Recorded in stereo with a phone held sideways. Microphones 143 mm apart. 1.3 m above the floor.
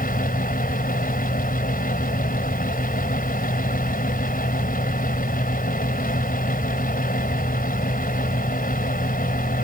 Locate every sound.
0.0 s a fan: 85° left